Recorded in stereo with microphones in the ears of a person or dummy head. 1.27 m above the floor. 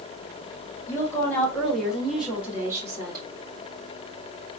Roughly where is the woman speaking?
Left.